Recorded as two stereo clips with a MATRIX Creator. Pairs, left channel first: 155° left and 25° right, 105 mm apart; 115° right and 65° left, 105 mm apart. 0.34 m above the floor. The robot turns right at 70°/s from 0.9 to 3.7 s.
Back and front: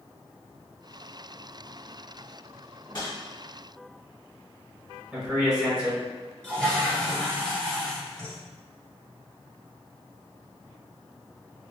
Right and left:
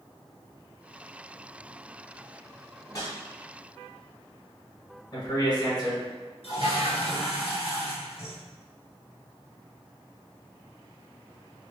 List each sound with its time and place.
2.8 s a whoosh: 170° right, 1.0 m; by 3.2 s 150° right, 1.0 m
5.1 s a man speaking: 105° right, 1.6 m
6.4 s a toilet flushing: 120° right, 1.2 m